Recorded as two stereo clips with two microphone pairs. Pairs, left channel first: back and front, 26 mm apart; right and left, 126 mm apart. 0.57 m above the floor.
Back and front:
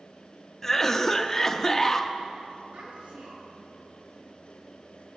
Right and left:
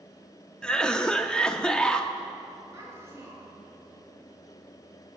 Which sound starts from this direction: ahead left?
A child speaking, at 2.7 s.